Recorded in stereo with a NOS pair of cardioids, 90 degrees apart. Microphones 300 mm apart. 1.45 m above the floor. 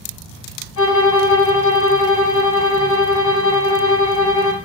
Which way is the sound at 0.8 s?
65° left.